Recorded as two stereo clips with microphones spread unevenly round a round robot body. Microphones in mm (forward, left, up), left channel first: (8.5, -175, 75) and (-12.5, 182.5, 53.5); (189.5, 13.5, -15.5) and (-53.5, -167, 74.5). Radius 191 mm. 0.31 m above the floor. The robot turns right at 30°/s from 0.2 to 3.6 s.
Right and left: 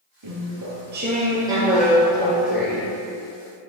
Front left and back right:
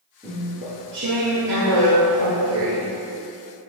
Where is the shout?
I don't hear a shout.